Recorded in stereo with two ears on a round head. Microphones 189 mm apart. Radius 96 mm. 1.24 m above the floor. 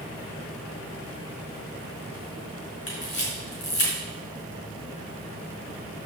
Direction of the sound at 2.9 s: 40° left (ahead or behind).